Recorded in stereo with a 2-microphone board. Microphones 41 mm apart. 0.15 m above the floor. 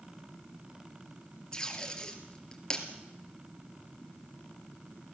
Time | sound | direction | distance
1.5 | tape being pulled | 20° left (ahead or behind) | 2.5 m